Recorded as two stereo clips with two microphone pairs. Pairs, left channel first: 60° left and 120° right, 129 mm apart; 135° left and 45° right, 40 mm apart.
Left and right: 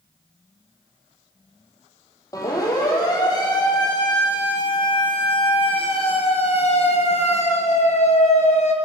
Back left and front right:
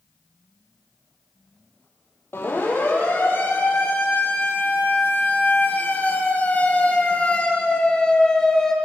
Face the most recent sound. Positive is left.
turn(degrees=60)